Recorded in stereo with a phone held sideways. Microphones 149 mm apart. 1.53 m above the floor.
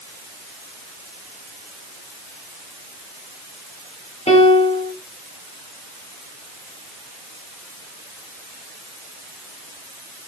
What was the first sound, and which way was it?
A piano, 45° left (ahead or behind).